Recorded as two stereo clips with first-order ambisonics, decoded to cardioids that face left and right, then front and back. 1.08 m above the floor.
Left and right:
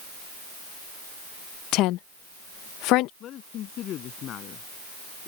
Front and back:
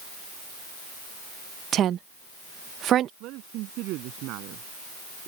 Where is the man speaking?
140° left.